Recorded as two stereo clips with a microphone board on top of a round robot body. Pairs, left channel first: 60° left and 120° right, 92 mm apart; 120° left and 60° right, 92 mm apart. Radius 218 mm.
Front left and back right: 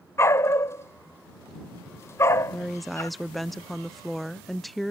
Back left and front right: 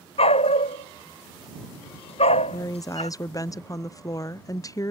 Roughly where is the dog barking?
Behind left.